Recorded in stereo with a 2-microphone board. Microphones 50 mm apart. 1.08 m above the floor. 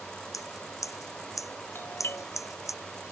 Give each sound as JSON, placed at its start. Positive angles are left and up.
{"t": 0.3, "sound": "scissors", "side_deg": 90}
{"t": 1.8, "sound": "a doorbell", "side_deg": 50}